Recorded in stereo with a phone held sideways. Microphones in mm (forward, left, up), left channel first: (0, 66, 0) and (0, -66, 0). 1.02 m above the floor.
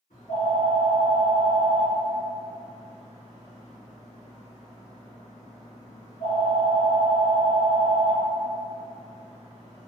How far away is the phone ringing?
About 1.1 m.